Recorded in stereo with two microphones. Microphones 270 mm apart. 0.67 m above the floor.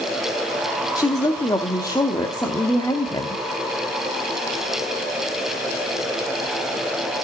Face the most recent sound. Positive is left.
turn(degrees=15)  # may be behind; listen again after turning